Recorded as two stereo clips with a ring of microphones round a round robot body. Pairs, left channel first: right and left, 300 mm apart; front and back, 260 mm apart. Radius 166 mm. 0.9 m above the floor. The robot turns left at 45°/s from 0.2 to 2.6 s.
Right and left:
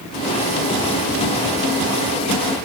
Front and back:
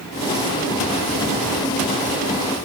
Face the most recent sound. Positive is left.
No sound to turn to.